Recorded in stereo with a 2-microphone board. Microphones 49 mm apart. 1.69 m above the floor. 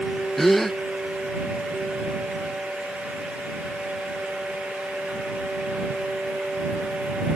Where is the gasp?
5° left (ahead or behind).